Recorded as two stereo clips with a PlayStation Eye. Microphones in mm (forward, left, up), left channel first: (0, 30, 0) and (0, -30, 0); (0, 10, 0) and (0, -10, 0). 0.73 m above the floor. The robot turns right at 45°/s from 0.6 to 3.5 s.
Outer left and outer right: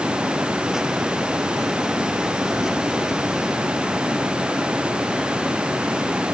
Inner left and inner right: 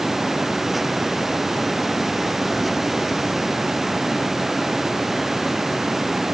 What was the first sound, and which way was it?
Only background noise.